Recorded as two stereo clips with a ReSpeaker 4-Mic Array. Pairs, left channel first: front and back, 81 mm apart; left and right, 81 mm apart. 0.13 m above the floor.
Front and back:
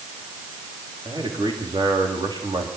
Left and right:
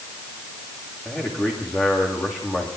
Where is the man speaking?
155° left, 9 m.